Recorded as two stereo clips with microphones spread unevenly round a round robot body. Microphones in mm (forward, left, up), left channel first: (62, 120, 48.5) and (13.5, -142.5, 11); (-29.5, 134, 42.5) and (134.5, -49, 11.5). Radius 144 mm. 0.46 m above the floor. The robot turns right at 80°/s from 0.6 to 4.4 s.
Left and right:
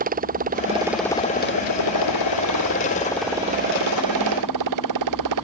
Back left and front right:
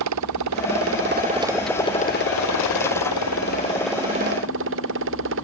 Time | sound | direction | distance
0.0 | a motorcycle | 40° right | ?